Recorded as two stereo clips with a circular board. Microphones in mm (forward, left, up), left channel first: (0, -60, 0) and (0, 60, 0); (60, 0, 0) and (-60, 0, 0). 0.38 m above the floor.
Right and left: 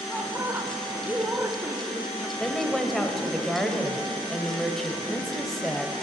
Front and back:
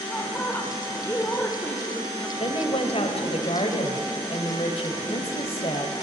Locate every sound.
0.1 s a woman speaking: 45° left, 1.0 m
2.4 s a woman speaking: 5° right, 1.3 m